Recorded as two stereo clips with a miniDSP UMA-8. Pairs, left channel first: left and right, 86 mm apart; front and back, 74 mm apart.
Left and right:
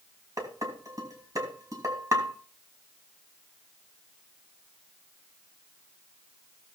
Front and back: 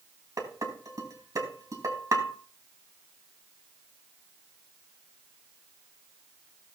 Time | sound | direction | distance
0.4 | dishes clattering | 140° right | 2.5 m